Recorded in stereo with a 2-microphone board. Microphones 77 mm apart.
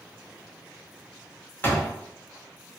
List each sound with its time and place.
1.6 s a door slam: 25° left (ahead or behind), 0.8 m